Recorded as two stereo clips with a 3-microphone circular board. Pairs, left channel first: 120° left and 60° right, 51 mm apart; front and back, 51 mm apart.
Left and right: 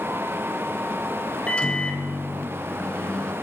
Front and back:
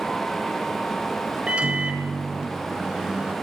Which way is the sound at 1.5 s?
150° left.